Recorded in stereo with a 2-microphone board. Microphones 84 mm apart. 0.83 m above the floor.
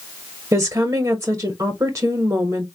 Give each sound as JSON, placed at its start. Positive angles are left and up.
{"t": 0.5, "sound": "a woman speaking", "side_deg": -35, "distance_m": 1.0}